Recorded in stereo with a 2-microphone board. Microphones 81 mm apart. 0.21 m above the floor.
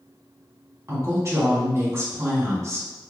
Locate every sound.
0.9 s a woman speaking: 35° right (ahead or behind), 1.9 m